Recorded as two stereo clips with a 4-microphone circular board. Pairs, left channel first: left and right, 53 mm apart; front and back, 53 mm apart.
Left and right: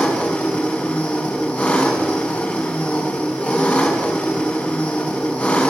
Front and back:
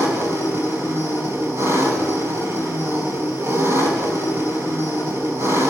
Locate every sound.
0.0 s an engine running: 150° left, 5 m